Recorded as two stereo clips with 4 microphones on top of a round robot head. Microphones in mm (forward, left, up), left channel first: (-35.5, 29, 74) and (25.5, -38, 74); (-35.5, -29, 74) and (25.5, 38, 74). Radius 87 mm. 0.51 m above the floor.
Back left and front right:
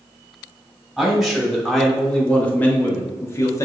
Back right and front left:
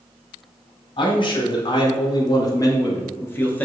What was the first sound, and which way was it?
A man speaking, 135° right.